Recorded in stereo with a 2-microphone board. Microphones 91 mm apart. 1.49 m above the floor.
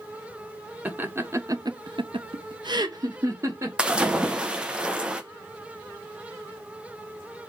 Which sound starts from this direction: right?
Laughter, at 0.8 s.